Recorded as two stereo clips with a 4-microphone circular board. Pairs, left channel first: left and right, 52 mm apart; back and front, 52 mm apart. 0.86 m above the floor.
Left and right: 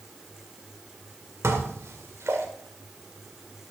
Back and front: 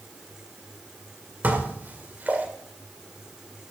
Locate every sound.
1.4 s dishes clattering: 55° right, 1.8 m